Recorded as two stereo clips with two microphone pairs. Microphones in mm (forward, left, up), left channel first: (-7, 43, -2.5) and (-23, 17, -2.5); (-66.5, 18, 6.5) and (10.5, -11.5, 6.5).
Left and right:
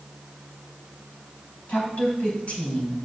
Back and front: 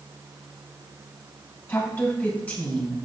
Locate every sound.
1.7 s a woman speaking: 95° left, 3.5 m; by 3.0 s 80° left, 3.5 m